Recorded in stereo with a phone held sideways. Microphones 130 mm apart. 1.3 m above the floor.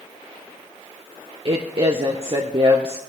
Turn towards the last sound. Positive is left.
turn(degrees=-45)  # may be behind; listen again after turning